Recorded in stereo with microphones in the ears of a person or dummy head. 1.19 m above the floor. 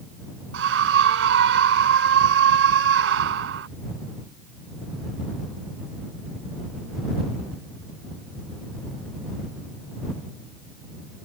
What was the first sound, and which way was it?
A scream, 65° right (ahead or behind).